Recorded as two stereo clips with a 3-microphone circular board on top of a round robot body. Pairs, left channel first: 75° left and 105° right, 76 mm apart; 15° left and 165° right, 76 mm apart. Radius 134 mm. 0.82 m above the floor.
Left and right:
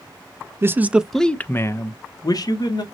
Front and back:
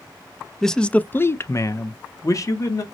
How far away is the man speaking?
About 0.6 m.